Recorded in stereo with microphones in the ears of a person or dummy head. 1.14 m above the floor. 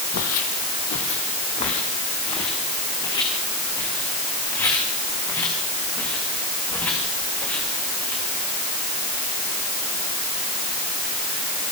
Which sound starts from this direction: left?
Footsteps, at 0.1 s.